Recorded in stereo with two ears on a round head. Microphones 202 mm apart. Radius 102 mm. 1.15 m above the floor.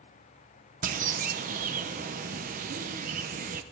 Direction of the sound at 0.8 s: 40° right (ahead or behind).